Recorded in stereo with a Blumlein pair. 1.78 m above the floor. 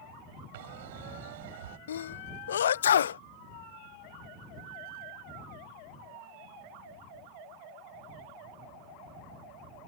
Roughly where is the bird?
Ahead right.